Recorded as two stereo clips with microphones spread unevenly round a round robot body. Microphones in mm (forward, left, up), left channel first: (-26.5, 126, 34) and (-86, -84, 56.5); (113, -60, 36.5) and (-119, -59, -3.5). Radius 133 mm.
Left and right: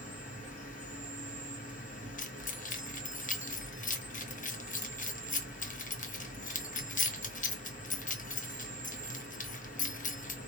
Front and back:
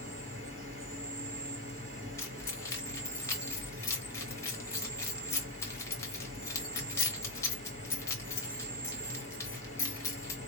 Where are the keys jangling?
85° left, 0.9 m.